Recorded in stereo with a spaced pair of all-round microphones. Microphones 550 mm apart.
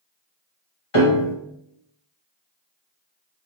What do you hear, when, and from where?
0.9 s a piano: 70° left (ahead or behind), 1.4 m